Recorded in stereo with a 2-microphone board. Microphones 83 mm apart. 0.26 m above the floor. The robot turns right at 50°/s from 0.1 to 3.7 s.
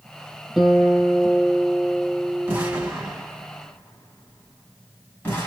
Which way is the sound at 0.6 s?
Centre (ahead or behind).